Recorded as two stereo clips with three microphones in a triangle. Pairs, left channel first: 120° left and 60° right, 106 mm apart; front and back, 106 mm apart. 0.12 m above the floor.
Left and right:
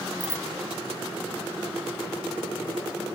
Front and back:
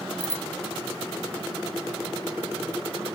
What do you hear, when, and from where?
0.2 s a bicycle bell: 5° left